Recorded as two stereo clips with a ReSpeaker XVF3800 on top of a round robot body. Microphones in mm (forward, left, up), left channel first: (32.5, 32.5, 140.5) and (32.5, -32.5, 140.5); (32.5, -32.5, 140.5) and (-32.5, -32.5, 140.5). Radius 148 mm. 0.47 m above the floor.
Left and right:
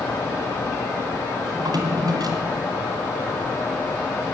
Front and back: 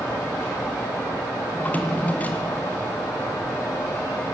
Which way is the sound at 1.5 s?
70° right.